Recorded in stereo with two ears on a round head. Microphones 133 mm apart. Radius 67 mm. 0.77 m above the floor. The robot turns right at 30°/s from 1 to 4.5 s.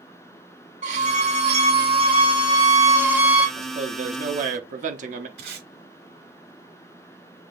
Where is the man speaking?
45° right (ahead or behind), 0.9 m; by 5.3 s 55° right (ahead or behind), 0.9 m.